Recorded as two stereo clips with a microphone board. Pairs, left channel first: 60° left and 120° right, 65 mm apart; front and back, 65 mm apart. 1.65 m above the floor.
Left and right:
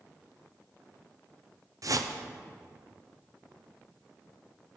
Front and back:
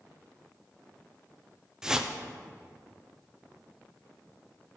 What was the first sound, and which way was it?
A whoosh, 100° right.